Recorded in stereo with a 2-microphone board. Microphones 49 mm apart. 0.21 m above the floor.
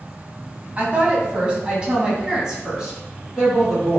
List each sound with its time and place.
0.8 s a woman speaking: 25° right (ahead or behind), 1.2 m; by 4.0 s 5° right (ahead or behind), 2 m